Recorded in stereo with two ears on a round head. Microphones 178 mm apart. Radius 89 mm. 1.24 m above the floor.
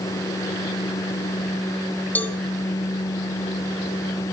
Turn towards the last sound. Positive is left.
turn(degrees=10)  # may be behind; listen again after turning